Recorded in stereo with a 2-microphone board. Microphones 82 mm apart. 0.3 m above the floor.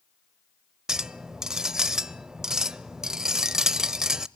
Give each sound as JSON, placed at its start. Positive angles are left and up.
{"t": 0.9, "sound": "a clink", "side_deg": -5, "distance_m": 0.5}